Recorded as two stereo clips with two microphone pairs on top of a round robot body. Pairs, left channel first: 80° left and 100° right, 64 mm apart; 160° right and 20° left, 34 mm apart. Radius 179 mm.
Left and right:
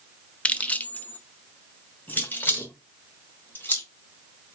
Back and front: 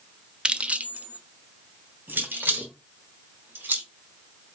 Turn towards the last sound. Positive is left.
turn(degrees=20)